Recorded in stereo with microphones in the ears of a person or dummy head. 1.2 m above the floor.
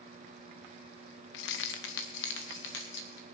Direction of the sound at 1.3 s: 60° left (ahead or behind).